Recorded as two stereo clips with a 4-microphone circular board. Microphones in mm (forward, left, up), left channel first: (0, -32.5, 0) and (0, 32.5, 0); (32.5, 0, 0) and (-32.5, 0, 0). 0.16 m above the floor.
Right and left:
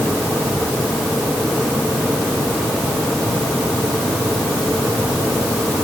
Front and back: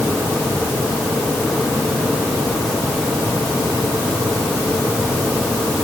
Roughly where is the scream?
I don't hear a scream.